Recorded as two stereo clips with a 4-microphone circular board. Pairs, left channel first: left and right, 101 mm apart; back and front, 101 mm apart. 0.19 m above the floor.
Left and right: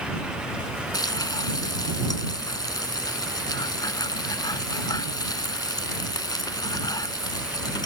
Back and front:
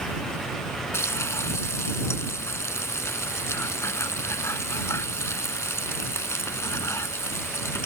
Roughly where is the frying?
Behind left.